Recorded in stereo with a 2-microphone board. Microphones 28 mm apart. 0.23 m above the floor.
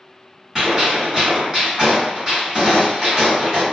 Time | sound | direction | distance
0.6 | a gunshot | 20° right (ahead or behind) | 1.5 m